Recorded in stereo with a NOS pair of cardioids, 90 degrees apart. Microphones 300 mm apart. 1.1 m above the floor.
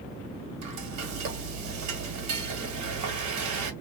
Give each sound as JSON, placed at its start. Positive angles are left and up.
{"t": 0.6, "sound": "frying", "azimuth_deg": -65, "distance_m": 1.5}